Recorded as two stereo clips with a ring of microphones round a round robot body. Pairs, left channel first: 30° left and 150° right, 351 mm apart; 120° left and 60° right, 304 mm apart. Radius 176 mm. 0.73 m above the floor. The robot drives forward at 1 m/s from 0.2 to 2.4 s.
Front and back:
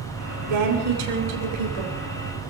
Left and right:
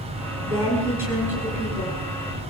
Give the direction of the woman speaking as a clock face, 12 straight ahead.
5 o'clock.